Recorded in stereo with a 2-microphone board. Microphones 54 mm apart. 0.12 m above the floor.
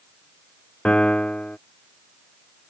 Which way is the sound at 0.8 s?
20° left (ahead or behind).